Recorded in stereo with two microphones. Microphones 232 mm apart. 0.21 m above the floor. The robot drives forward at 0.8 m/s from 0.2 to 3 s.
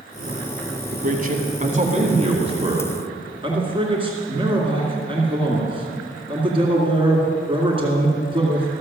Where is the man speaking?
40° right (ahead or behind), 1.3 m; by 8.8 s 20° right (ahead or behind), 2 m.